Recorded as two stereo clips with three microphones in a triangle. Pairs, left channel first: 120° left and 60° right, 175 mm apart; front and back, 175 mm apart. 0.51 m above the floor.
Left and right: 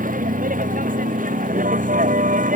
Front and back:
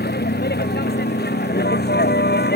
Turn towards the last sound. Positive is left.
turn(degrees=-20)